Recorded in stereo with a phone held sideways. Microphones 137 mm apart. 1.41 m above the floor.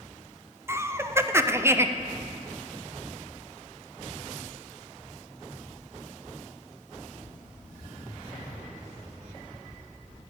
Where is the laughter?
20° right (ahead or behind), 0.6 m.